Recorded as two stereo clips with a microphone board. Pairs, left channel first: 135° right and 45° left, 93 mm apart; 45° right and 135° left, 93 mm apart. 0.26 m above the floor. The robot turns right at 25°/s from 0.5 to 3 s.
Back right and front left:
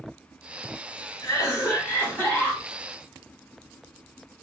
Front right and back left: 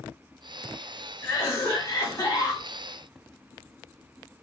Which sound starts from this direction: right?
A cough, at 1.2 s.